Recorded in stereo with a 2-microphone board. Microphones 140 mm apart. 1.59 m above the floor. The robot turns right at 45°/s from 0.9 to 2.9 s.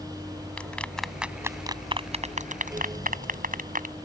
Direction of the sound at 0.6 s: 10° left (ahead or behind).